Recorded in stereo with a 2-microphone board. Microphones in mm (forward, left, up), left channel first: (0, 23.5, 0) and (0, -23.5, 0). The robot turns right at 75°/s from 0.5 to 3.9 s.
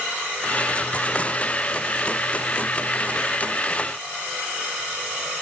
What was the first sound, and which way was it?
Only background noise.